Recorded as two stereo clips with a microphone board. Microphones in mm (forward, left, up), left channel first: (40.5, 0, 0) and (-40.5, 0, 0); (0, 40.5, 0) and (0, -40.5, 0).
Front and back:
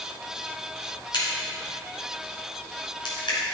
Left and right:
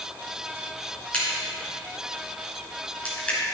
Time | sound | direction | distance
1.1 | a crack | 15° left | 3 m